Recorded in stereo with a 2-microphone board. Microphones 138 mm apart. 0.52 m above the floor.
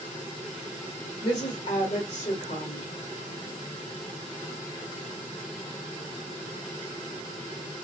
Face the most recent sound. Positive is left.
turn(degrees=60)  # may be behind; listen again after turning